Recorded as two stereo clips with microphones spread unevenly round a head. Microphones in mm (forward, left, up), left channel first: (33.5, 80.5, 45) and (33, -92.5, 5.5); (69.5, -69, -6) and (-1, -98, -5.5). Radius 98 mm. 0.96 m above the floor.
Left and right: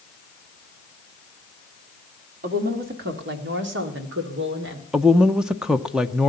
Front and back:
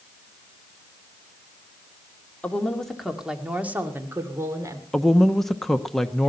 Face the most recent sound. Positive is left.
turn(degrees=-55)